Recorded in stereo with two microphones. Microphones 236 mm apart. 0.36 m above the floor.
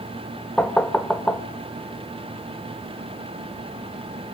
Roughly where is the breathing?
I don't hear breathing.